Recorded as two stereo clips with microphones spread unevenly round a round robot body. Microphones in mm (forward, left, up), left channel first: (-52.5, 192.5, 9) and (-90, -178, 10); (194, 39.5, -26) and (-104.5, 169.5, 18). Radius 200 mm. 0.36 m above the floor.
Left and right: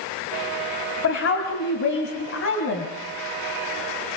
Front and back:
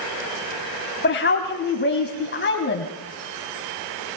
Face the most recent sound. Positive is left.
turn(degrees=30)